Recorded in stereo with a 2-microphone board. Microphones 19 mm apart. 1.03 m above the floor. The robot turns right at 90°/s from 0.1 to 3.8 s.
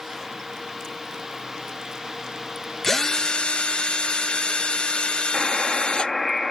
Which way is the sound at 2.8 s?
25° left.